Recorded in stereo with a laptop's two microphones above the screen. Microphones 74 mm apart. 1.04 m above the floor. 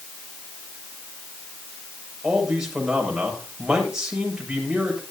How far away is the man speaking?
About 6.5 m.